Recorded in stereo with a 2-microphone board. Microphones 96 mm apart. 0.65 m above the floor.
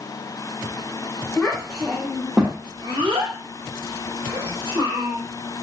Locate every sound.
1.4 s a child speaking: 5° left (ahead or behind), 1.0 m; by 5.2 s 60° right (ahead or behind), 1.5 m